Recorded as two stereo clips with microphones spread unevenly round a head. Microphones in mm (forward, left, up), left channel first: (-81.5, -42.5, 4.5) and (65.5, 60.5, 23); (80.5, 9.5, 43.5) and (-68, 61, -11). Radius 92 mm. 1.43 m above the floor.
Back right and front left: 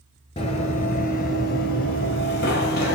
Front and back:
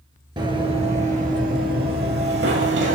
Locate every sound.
0.4 s running footsteps: 120° right, 1.5 m; by 3.0 s 165° right, 2.5 m